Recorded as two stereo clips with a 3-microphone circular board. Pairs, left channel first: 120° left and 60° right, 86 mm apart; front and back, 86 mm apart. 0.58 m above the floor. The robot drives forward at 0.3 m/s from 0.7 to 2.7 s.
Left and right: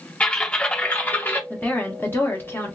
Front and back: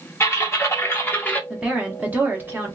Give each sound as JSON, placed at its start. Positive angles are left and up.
{"t": 0.2, "sound": "typing on a keyboard", "azimuth_deg": 50, "distance_m": 0.9}
{"t": 1.5, "sound": "a woman speaking", "azimuth_deg": 120, "distance_m": 1.1}